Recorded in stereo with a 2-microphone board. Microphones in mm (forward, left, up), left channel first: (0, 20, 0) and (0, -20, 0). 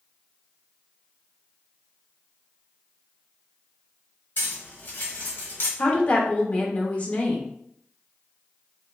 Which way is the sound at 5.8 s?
40° left (ahead or behind).